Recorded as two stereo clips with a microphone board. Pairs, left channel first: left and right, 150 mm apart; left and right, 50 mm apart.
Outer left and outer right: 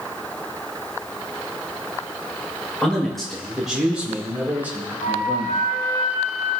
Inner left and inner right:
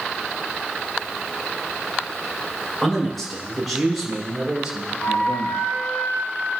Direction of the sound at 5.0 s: 70° left (ahead or behind).